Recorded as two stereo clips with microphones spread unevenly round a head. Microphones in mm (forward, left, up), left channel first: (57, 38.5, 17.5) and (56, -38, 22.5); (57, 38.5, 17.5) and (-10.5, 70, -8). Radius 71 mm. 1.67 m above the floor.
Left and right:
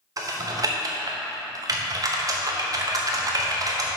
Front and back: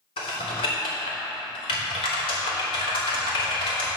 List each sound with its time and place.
0.2 s typing on a keyboard: 50° right, 1.1 m